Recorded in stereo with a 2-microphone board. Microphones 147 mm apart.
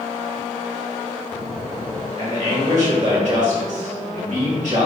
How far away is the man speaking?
About 1.7 m.